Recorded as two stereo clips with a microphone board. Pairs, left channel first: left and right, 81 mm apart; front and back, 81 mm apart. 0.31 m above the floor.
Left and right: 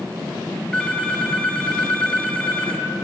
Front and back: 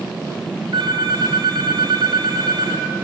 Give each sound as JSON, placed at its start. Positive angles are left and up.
{"t": 0.7, "sound": "a phone ringing", "azimuth_deg": 170, "distance_m": 1.8}